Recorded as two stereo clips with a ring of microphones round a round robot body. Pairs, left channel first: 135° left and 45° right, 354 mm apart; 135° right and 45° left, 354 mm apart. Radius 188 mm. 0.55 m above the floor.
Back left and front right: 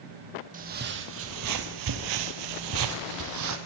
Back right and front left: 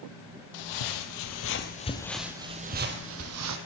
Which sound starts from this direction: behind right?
Footsteps, at 0.5 s.